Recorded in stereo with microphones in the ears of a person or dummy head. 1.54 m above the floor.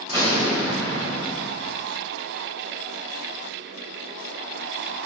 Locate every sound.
0.1 s an explosion: 35° right (ahead or behind), 3 m